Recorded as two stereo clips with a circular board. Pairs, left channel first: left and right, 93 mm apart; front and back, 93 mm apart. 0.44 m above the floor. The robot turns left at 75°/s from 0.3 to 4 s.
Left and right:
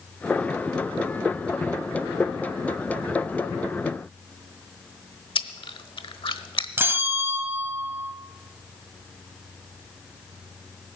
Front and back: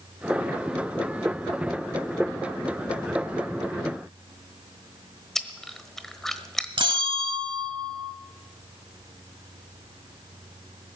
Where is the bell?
155° right, 1.0 m.